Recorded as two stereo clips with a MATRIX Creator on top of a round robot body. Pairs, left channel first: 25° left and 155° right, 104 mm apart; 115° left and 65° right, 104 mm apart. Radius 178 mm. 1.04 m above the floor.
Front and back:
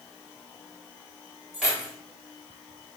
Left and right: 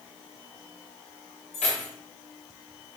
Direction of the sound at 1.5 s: 115° left.